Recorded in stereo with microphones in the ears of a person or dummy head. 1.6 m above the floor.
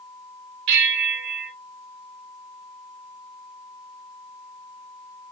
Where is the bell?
70° right (ahead or behind), 1.0 m.